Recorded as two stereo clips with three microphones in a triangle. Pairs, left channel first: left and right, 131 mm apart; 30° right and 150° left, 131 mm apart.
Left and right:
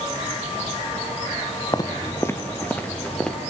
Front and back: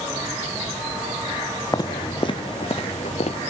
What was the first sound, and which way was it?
Footsteps, 30° left.